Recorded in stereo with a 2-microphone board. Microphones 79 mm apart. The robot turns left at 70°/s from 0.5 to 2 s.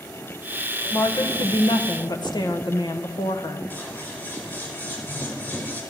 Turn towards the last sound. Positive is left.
turn(degrees=20)  # may be behind; listen again after turning